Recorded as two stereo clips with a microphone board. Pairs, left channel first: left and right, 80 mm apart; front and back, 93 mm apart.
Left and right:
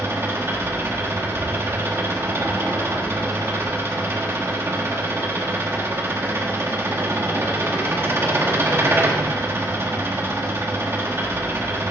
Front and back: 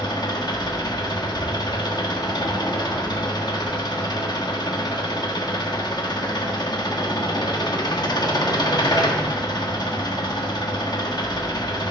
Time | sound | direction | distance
0.0 | an engine running | 35° right | 1.2 m